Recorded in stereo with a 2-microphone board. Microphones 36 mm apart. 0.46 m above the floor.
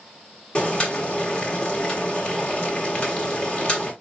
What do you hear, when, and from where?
0.6 s boiling: 30° left (ahead or behind), 1.4 m